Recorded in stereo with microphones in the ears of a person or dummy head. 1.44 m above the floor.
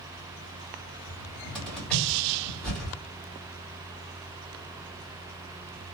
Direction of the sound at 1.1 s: 5° left (ahead or behind).